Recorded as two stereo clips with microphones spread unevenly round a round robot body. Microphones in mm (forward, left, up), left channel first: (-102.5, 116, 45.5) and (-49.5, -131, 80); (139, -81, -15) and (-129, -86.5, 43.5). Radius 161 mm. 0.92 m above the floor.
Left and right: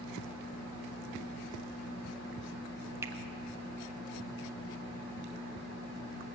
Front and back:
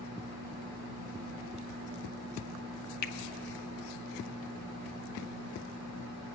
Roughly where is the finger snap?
Ahead.